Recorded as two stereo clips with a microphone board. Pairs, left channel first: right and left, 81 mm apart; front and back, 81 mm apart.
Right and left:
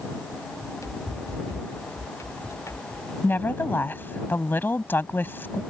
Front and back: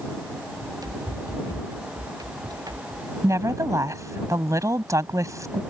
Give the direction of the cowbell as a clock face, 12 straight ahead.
I don't hear a cowbell.